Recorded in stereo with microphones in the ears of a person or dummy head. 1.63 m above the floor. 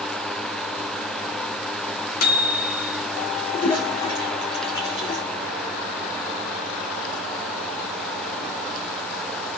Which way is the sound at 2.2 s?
55° left (ahead or behind).